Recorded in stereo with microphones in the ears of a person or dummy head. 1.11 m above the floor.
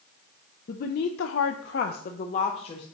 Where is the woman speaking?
45° left (ahead or behind), 0.6 m; by 2.9 s 30° left (ahead or behind), 0.9 m.